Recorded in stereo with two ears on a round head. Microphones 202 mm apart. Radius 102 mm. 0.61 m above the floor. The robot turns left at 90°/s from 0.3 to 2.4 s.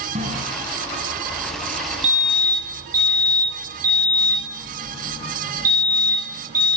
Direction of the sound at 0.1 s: 30° right (ahead or behind).